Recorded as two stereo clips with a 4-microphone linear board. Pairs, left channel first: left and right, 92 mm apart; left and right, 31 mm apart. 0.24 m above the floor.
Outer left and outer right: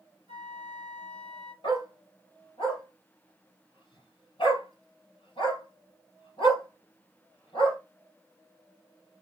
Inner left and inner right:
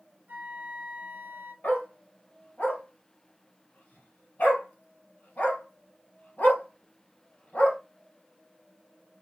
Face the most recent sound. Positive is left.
turn(degrees=70)  # may be behind; listen again after turning